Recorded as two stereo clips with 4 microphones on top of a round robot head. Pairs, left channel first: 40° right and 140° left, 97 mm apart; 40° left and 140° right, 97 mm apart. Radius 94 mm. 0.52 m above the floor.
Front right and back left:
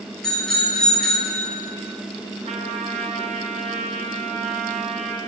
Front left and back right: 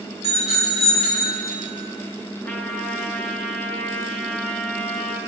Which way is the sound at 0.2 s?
45° left.